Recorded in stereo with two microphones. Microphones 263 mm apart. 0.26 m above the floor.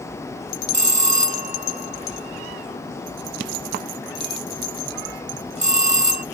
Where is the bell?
25° right (ahead or behind).